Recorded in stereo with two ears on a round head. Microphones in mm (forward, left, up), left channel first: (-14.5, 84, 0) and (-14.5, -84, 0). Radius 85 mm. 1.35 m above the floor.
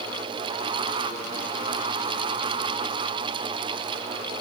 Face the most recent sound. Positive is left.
No sound to turn to.